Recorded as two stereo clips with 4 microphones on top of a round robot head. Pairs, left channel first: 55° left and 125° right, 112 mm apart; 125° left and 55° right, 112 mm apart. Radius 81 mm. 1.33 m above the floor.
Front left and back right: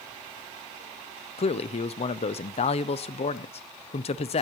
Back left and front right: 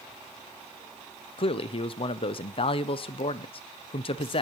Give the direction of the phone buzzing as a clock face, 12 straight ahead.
No phone buzzing in this recording.